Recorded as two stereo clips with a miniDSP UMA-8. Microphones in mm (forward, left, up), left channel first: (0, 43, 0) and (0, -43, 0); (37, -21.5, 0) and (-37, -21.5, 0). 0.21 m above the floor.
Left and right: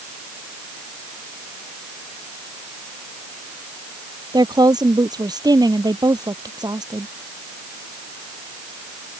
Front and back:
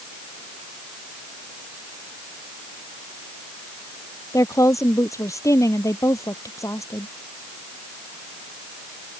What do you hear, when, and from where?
4.3 s a woman speaking: 50° right